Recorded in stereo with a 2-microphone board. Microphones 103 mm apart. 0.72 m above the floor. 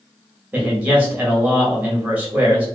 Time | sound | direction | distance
0.5 | a man speaking | 15° right (ahead or behind) | 1.1 m